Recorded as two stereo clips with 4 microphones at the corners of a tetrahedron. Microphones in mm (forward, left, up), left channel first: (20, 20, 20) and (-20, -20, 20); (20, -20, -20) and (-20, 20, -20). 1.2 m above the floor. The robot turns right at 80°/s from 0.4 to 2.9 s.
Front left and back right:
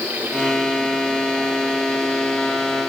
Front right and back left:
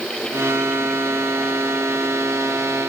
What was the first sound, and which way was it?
Only background noise.